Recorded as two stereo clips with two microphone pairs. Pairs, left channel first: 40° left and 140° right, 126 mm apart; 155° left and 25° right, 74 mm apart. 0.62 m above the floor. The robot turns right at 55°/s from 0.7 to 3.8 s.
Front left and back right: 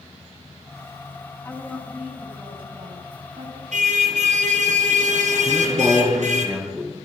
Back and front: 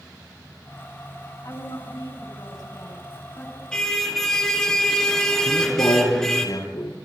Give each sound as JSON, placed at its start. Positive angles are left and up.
{"t": 1.4, "sound": "a woman speaking", "azimuth_deg": 110, "distance_m": 6.0}
{"t": 3.7, "sound": "a car horn", "azimuth_deg": -125, "distance_m": 5.0}
{"t": 5.5, "sound": "a man speaking", "azimuth_deg": 140, "distance_m": 8.0}